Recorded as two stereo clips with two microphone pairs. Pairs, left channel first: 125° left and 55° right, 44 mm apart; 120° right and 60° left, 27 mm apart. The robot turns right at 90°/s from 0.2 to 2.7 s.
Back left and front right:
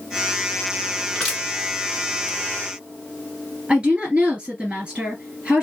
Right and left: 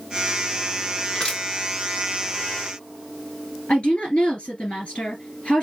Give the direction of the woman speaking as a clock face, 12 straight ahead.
4 o'clock.